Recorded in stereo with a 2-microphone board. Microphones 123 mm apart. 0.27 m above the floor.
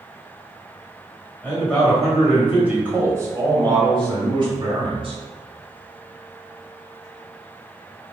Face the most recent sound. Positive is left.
turn(degrees=-50)  # may be behind; listen again after turning